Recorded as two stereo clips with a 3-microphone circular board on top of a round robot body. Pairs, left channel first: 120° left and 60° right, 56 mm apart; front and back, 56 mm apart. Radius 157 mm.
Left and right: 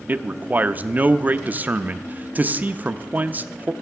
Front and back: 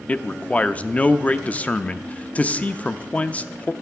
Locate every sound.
0.1 s a man speaking: 40° right, 0.7 m